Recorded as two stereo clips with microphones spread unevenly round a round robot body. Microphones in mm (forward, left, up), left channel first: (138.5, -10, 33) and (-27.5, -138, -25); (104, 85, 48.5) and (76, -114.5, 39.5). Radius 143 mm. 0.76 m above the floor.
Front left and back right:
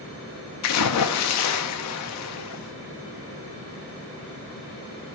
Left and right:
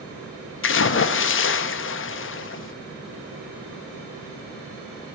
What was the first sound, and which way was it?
A splash, 60° left.